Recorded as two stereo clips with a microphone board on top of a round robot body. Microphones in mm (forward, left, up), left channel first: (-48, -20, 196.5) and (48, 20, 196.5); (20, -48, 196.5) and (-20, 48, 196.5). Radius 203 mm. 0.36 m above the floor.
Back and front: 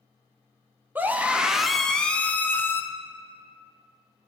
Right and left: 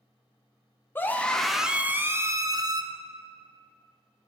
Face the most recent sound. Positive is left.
turn(degrees=140)